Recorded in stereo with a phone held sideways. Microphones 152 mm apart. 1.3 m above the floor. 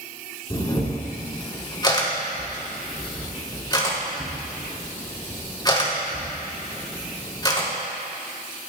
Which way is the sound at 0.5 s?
30° left (ahead or behind).